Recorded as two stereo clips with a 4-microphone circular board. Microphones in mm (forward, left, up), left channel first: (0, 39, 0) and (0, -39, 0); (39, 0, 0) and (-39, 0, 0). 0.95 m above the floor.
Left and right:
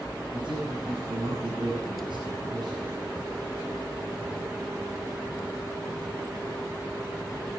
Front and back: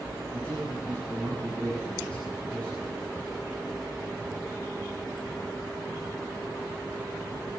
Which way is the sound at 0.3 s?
60° right.